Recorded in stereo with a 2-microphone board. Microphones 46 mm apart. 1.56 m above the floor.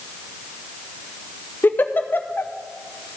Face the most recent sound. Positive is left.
turn(degrees=45)  # may be behind; listen again after turning